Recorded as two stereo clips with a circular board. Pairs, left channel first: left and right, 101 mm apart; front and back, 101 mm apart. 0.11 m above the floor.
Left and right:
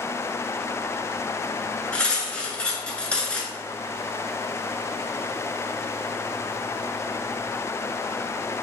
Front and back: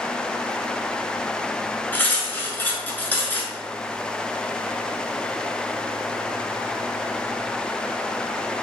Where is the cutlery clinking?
30° left, 0.8 m.